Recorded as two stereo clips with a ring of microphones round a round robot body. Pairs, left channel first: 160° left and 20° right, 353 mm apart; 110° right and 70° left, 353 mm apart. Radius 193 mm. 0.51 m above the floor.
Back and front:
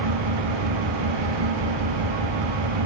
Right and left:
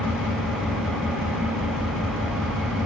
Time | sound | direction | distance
0.0 | an engine running | 20° right | 7 m